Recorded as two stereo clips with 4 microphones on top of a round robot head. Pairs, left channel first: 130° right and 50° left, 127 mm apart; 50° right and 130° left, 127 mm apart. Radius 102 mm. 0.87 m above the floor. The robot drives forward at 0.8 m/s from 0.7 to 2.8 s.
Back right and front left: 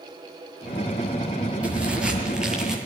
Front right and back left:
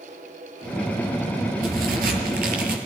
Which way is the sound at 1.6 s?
130° left.